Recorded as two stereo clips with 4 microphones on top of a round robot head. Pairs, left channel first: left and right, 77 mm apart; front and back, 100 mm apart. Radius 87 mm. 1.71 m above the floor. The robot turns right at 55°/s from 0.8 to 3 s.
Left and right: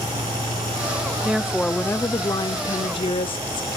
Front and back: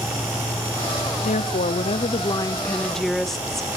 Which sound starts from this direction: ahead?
A woman speaking, at 1.2 s.